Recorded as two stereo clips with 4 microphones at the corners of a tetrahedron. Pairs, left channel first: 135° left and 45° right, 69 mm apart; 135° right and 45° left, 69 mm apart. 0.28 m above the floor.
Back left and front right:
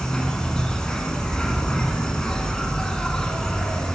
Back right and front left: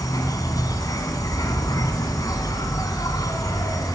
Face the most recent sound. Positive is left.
turn(degrees=-145)